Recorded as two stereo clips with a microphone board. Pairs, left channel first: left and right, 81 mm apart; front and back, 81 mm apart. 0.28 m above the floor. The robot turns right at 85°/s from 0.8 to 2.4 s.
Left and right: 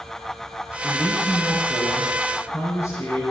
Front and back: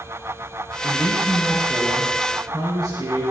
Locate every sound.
0.8 s a man speaking: 10° left, 5.5 m; by 3.2 s 140° left, 5.5 m